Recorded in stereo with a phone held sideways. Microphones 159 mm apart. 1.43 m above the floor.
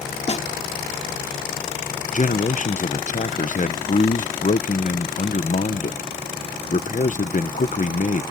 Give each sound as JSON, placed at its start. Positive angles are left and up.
{"t": 0.3, "sound": "a snare drum", "side_deg": 45}
{"t": 2.1, "sound": "a man speaking", "side_deg": 55}